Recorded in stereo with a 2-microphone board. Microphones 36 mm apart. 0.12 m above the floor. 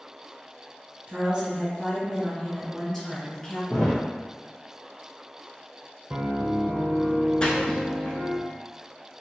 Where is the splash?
25° left (ahead or behind), 0.9 m.